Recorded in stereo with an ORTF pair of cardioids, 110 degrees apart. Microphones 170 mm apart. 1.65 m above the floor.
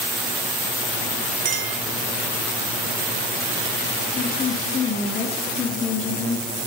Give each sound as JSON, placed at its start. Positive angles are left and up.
{"t": 1.4, "sound": "a clink", "azimuth_deg": -50, "distance_m": 1.8}
{"t": 4.2, "sound": "a woman speaking", "azimuth_deg": 40, "distance_m": 2.5}